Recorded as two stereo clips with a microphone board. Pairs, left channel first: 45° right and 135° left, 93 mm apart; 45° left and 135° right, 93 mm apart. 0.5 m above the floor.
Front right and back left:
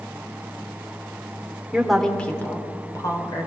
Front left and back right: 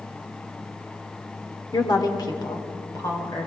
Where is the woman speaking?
55° left, 1.7 m; by 3.5 s 10° right, 2.5 m.